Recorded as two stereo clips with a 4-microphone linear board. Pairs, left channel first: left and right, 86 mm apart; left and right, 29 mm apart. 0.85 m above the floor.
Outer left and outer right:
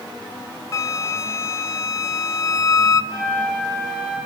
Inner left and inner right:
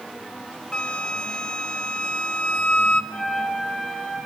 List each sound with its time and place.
0.7 s a flute: 35° left (ahead or behind), 0.6 m
3.1 s a flute: 10° left (ahead or behind), 8 m